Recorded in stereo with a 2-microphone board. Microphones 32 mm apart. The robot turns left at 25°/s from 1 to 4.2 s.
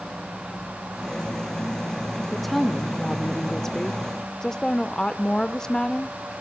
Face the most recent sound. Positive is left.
turn(degrees=15)  # may be behind; listen again after turning